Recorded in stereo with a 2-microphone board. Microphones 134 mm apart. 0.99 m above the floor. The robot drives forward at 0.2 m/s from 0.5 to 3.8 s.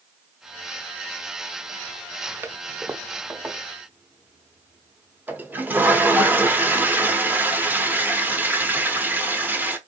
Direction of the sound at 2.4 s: 15° right (ahead or behind).